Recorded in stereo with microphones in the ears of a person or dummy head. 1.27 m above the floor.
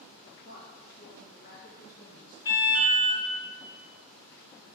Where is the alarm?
25° left (ahead or behind), 1.9 m.